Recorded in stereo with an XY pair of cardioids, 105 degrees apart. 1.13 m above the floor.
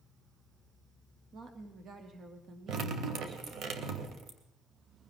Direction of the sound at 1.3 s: 45° right.